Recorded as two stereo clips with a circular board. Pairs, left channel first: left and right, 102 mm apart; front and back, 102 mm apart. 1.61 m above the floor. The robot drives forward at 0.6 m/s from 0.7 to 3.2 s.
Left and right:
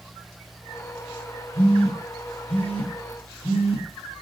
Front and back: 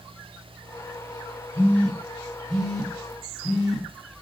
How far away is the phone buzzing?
About 3.5 m.